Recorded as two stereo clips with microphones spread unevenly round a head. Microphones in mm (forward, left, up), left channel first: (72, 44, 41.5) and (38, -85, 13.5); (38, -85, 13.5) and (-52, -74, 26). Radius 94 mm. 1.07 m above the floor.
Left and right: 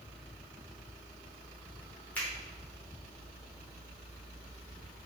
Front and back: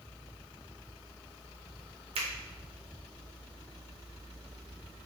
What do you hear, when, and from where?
2.1 s a finger snap: 160° left, 0.7 m